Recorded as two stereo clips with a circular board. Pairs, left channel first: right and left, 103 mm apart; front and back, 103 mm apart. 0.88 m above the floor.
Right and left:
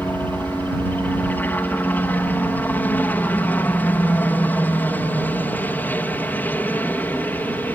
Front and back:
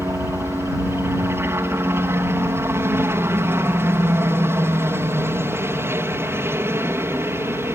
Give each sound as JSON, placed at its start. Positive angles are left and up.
{"t": 0.0, "sound": "a helicopter", "azimuth_deg": -145}